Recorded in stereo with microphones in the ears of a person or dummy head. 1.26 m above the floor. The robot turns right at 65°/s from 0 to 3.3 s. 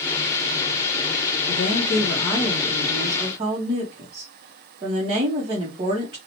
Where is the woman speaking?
95° left, 0.7 m; by 6.2 s 145° right, 0.7 m.